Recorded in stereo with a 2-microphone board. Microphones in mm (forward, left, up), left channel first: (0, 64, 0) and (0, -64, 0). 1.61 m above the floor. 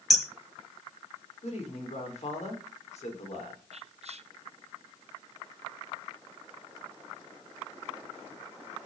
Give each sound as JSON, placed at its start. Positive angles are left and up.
{"t": 0.1, "sound": "hammering", "side_deg": 0, "distance_m": 2.5}
{"t": 1.4, "sound": "a man speaking", "side_deg": 60, "distance_m": 6.0}
{"t": 3.7, "sound": "whispering", "side_deg": -55, "distance_m": 1.0}